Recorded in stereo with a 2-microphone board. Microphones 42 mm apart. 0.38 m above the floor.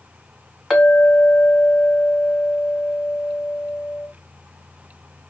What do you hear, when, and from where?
0.7 s a clink: 10° left (ahead or behind), 1.2 m